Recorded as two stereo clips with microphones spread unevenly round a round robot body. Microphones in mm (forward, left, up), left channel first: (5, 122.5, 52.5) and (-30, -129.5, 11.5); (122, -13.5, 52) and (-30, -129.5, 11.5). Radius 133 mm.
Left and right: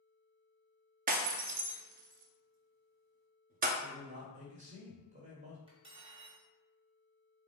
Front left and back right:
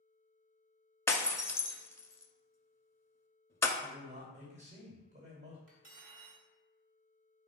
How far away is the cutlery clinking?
About 1.1 m.